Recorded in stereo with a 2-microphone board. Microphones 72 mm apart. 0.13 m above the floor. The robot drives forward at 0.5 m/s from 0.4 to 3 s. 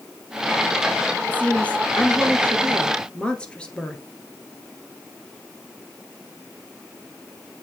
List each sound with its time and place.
1.3 s a woman speaking: 20° left (ahead or behind), 1.4 m; by 4.0 s 15° left (ahead or behind), 2.0 m